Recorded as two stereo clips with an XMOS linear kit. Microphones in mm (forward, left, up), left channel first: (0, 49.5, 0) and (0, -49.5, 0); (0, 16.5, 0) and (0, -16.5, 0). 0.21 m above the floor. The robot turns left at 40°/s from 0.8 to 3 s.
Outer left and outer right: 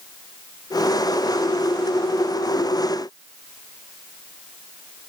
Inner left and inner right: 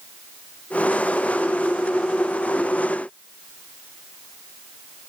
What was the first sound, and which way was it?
Only background noise.